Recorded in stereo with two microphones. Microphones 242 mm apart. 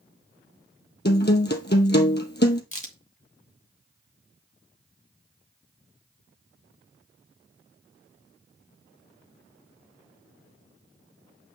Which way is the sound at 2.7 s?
30° left (ahead or behind).